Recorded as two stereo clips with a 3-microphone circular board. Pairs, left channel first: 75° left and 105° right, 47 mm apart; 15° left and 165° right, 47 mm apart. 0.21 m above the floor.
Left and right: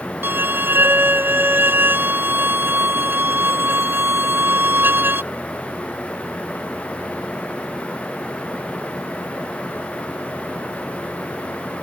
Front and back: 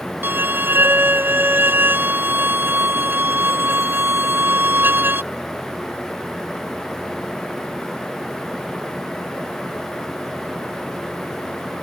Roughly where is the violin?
Behind right.